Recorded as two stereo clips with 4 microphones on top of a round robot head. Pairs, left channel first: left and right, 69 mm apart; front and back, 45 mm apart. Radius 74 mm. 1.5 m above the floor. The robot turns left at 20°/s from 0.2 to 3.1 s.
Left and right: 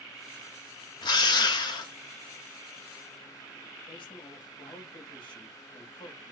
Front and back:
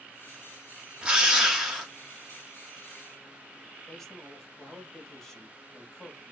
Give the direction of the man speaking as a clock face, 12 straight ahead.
9 o'clock.